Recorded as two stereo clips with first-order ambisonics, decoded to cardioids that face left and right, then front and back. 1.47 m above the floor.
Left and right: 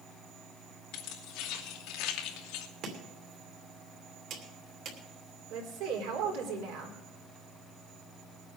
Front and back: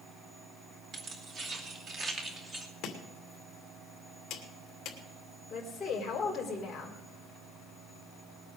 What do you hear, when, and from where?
0.9 s keys jangling: 125° left, 3.5 m; by 2.7 s 105° left, 1.6 m
2.8 s chopping: 50° right, 2.5 m
5.5 s a woman speaking: 80° right, 3.5 m